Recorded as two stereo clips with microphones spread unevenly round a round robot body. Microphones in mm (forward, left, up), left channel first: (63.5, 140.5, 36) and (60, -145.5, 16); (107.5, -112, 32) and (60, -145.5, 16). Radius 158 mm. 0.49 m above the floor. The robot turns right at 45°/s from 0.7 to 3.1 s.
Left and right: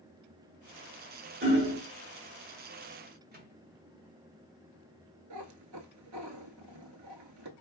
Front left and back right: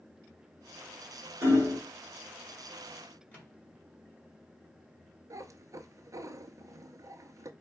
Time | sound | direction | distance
1.4 | hammering | 145° right | 1.2 m
3.3 | a microwave | 35° right | 1.8 m
5.3 | a cat meowing | 115° right | 0.6 m